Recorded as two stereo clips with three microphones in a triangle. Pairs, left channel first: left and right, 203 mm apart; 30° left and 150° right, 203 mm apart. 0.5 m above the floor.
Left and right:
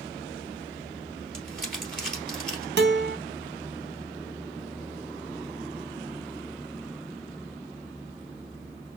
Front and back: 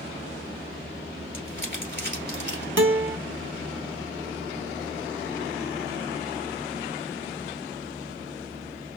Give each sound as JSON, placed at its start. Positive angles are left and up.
{"t": 1.3, "sound": "crumpling", "azimuth_deg": 0, "distance_m": 2.0}
{"t": 2.8, "sound": "a guitar", "azimuth_deg": -125, "distance_m": 0.7}